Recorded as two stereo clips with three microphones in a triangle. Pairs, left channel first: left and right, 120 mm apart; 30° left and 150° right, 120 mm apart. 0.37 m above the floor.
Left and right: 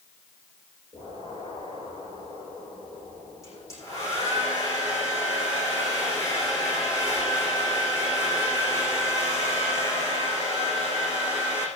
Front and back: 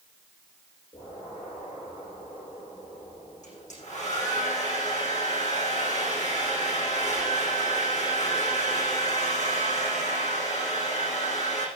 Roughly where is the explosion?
Ahead left.